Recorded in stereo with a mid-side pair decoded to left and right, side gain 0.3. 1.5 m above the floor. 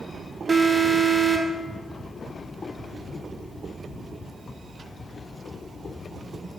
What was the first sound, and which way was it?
An alarm, 40° right.